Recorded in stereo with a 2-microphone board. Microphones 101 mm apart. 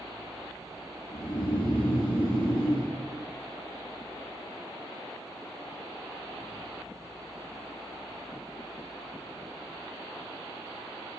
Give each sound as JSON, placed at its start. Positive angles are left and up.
{"t": 1.1, "sound": "snoring", "side_deg": 70, "distance_m": 4.5}